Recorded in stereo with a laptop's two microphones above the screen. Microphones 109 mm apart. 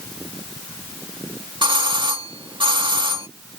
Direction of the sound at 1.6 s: 50° right (ahead or behind).